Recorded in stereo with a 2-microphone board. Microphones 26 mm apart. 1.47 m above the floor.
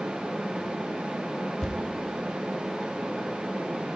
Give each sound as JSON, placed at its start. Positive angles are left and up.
{"t": 1.6, "sound": "a thud", "side_deg": 30, "distance_m": 1.4}